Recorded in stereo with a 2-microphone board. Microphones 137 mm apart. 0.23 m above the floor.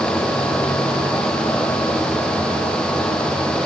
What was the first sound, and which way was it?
Only background noise.